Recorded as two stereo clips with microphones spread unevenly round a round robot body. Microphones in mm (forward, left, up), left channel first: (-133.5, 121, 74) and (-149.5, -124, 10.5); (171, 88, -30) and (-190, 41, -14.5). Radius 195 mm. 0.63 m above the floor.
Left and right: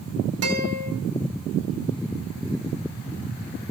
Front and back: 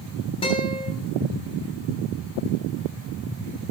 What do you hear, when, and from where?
0.4 s a guitar: 70° right, 3.5 m